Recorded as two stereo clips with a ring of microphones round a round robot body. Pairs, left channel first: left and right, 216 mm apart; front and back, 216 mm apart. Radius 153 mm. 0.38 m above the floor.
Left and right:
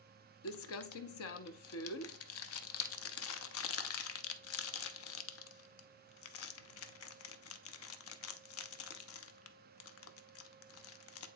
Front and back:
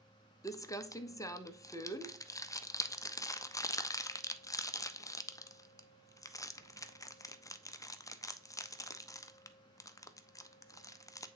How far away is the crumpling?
About 0.7 m.